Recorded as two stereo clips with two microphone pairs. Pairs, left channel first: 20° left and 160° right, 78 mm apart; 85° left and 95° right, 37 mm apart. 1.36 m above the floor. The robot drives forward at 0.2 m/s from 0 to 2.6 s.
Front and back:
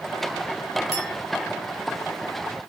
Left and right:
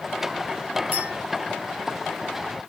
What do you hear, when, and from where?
0.9 s a clink: 65° right, 6 m